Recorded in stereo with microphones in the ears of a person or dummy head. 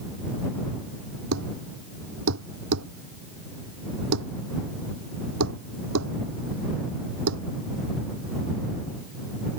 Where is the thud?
75° right (ahead or behind).